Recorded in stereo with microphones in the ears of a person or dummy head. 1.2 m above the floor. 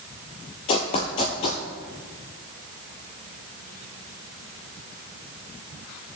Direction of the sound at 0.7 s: 30° left (ahead or behind).